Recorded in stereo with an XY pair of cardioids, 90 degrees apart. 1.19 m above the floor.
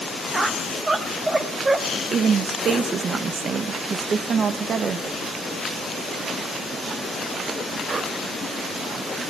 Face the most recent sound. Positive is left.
turn(degrees=-60)